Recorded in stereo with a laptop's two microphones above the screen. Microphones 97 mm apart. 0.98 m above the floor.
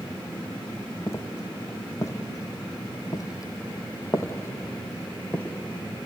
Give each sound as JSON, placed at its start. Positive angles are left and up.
{"t": 1.1, "sound": "footsteps", "side_deg": 30, "distance_m": 2.0}